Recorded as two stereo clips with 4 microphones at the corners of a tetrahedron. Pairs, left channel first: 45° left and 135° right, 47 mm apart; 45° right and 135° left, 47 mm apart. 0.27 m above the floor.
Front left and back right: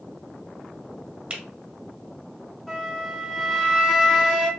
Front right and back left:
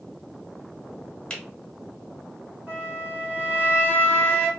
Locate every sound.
1.3 s a finger snap: 85° right, 1.3 m
2.7 s a flute: 115° left, 2 m